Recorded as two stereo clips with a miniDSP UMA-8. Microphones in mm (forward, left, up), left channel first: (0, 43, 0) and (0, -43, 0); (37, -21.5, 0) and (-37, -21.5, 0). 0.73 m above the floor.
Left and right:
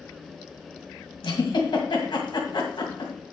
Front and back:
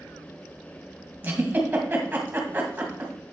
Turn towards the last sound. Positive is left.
turn(degrees=115)